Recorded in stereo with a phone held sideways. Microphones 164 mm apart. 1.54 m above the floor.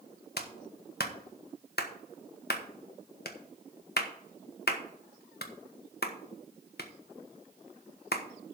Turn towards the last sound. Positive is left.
turn(degrees=75)  # may be behind; listen again after turning